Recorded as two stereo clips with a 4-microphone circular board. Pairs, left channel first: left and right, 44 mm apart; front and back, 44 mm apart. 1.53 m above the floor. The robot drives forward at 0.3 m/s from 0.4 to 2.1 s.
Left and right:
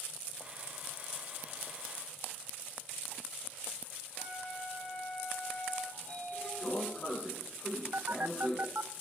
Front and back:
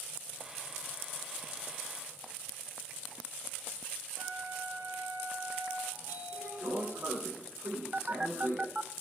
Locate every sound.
4.2 s a flute: 145° left, 8.5 m
5.9 s a sliding door: 140° left, 8.5 m
7.9 s a phone buzzing: 120° right, 0.5 m